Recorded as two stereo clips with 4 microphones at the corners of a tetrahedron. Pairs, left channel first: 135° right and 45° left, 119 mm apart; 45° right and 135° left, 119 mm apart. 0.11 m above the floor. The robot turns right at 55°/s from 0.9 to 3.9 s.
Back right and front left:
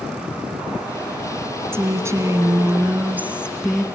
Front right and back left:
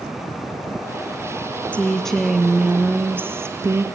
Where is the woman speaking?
20° left, 1.8 m; by 3.8 s 135° left, 1.8 m.